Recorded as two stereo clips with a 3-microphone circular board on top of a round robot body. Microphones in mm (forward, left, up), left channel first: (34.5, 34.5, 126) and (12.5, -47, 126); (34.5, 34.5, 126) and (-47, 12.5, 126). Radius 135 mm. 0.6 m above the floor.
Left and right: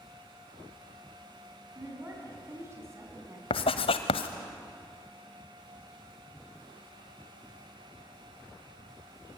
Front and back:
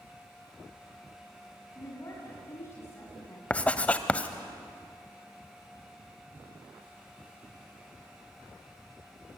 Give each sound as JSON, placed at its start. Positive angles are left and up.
{"t": 1.8, "sound": "a woman speaking", "azimuth_deg": -45, "distance_m": 6.0}
{"t": 3.5, "sound": "writing", "azimuth_deg": 90, "distance_m": 0.8}